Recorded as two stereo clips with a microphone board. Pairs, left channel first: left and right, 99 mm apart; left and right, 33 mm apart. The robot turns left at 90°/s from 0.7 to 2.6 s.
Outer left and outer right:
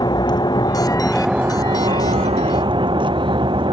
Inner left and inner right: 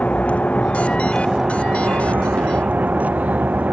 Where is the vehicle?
45° left; by 3.7 s 125° right.